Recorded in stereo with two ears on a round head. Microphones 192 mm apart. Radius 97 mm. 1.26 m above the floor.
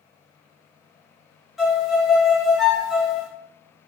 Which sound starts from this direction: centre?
A violin, at 1.6 s.